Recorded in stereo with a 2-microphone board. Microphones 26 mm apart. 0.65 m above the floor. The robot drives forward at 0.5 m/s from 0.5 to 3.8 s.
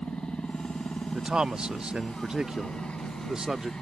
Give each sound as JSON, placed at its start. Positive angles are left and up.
{"t": 0.0, "sound": "a helicopter", "side_deg": 60}
{"t": 1.1, "sound": "a man speaking", "side_deg": -40}